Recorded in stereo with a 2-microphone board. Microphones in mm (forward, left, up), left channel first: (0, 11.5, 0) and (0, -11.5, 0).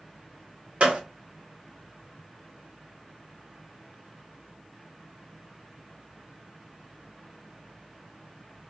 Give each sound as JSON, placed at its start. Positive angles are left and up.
{"t": 0.8, "sound": "a gunshot", "side_deg": -65, "distance_m": 0.9}